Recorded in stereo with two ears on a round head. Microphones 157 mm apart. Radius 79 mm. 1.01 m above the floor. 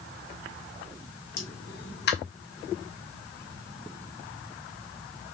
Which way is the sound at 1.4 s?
65° left (ahead or behind).